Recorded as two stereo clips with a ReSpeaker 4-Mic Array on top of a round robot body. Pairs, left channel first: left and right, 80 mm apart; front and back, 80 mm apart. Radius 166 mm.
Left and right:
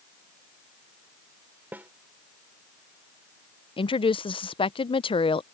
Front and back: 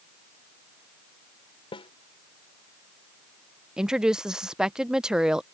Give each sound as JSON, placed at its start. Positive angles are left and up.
{"t": 1.7, "sound": "a snare drum", "azimuth_deg": -20}
{"t": 3.8, "sound": "a woman speaking", "azimuth_deg": 100}